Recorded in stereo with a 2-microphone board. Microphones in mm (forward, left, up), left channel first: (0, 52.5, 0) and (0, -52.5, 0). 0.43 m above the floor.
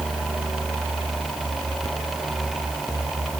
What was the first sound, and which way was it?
Only background noise.